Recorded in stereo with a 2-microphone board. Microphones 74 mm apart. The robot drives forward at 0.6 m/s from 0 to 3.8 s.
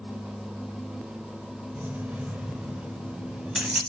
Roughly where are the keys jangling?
Right.